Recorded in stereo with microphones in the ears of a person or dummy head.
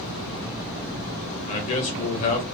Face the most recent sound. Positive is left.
turn(degrees=40)  # may be behind; listen again after turning